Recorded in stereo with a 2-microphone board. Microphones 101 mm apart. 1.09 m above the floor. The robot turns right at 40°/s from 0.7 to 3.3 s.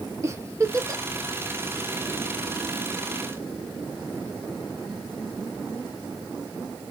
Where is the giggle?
30° right (ahead or behind), 0.7 m; by 1.0 s 35° right (ahead or behind), 0.7 m.